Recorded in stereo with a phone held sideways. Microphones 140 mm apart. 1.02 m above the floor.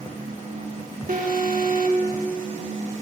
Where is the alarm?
70° right (ahead or behind), 1.4 m.